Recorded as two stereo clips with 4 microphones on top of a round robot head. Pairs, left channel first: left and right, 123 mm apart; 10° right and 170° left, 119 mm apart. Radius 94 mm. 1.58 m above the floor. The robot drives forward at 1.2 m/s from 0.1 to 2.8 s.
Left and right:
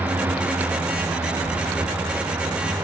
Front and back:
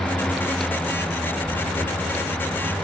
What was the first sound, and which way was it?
Only background noise.